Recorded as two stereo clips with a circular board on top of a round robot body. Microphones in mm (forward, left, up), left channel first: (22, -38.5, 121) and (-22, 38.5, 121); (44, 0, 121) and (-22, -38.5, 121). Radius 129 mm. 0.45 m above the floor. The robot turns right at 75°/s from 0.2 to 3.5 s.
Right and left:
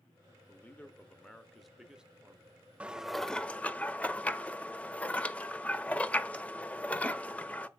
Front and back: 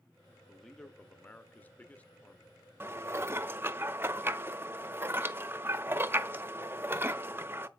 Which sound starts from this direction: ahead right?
A man speaking, at 0.5 s.